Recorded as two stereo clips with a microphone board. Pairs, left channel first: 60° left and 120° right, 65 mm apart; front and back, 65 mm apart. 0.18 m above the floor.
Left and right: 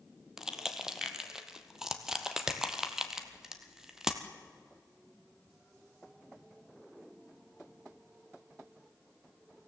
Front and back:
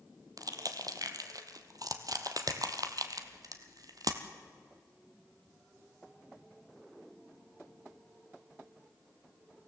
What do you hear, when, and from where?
0.4 s crushing: 160° left, 1.3 m